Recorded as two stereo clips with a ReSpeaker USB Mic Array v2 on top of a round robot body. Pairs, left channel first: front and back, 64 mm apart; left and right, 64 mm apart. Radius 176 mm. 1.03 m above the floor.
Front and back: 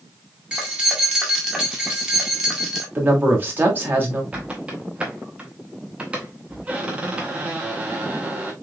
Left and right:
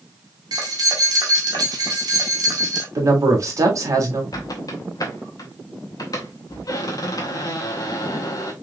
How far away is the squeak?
About 0.7 m.